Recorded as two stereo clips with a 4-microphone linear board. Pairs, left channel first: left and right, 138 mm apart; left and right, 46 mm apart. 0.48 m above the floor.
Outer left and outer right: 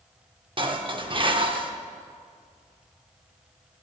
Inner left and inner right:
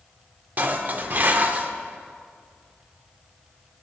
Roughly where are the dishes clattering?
Right.